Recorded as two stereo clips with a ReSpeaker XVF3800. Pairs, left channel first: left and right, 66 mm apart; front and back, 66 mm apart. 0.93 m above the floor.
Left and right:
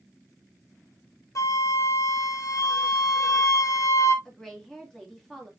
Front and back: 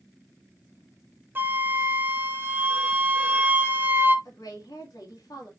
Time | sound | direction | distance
1.4 | a flute | 125° left | 0.7 m
4.2 | a woman speaking | 5° left | 2.0 m